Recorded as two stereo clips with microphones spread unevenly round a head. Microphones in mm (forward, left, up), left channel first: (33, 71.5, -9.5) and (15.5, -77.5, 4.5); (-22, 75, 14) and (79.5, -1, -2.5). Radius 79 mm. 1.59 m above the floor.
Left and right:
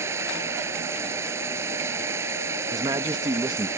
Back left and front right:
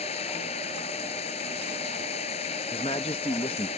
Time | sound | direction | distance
0.0 | running water | 170° right | ?
2.7 | a man speaking | 160° right | ?